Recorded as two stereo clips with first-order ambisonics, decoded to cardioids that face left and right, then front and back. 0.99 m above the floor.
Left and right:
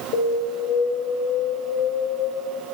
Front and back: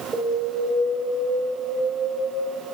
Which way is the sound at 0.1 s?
105° left.